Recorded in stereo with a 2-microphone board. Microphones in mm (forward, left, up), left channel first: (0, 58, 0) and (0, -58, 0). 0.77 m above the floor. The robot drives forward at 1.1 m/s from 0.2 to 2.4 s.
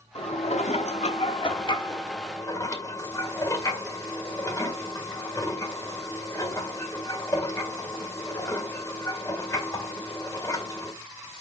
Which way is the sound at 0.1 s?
55° left (ahead or behind).